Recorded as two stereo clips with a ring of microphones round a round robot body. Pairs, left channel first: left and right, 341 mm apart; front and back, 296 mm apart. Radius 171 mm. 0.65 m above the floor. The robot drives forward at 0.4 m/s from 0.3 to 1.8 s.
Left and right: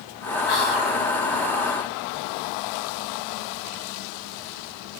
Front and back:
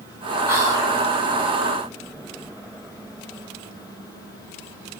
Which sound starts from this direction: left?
Whispering, at 0.5 s.